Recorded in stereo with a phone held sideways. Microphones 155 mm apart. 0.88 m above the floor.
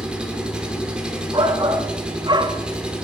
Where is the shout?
30° right (ahead or behind), 1.5 m.